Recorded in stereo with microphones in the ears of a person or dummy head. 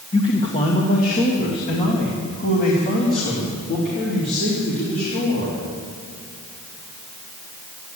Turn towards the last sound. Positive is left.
turn(degrees=50)  # may be behind; listen again after turning